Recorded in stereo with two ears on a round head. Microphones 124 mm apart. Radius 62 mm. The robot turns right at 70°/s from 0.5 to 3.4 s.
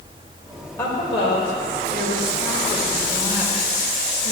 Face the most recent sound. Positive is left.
turn(degrees=-160)